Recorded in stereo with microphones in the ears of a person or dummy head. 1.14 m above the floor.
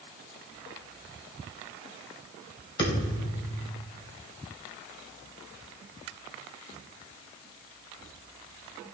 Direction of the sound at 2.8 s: 25° left (ahead or behind).